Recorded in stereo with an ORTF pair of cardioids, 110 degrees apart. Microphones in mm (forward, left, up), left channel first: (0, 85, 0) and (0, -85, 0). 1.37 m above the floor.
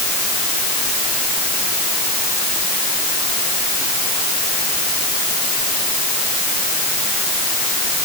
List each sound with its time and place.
Only background noise.